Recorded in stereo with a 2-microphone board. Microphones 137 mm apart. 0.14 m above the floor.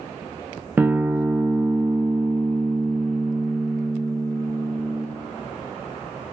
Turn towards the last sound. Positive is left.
turn(degrees=-15)  # may be behind; listen again after turning